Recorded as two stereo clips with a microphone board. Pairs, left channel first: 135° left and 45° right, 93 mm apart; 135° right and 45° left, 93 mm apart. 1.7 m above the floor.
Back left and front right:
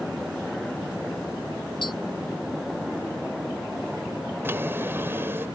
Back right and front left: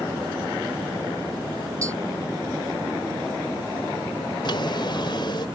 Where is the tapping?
100° left.